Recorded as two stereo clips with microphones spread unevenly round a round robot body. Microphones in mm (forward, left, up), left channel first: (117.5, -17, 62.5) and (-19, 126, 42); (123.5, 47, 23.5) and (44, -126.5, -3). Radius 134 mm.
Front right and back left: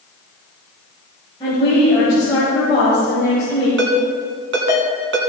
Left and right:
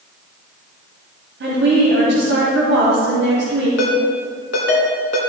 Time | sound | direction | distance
1.4 | a woman speaking | 115° right | 2.5 m
3.8 | a ringtone | 120° left | 1.7 m